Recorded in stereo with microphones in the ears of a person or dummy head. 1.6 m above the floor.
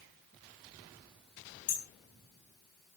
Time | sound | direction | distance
1.7 | hammering | 45° left (ahead or behind) | 5 m